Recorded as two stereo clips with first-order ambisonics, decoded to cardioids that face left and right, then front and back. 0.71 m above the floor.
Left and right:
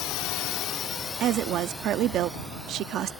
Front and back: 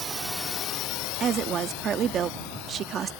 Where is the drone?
115° left; by 3.2 s 5° right.